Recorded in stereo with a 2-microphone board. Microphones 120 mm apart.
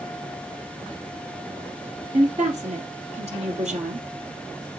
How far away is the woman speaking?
About 2.5 m.